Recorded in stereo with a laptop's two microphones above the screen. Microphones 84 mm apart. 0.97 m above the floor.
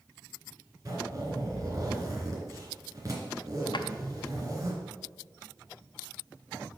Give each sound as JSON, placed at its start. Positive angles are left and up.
{"t": 0.8, "sound": "a zipper", "side_deg": -45, "distance_m": 2.5}
{"t": 3.7, "sound": "a drawer", "side_deg": 65, "distance_m": 0.5}